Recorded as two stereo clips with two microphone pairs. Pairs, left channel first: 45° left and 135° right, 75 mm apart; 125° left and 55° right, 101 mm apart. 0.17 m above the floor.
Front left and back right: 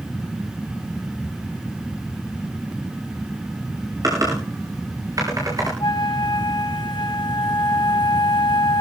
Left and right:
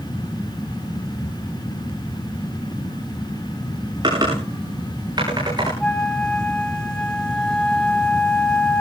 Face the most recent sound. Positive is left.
turn(degrees=40)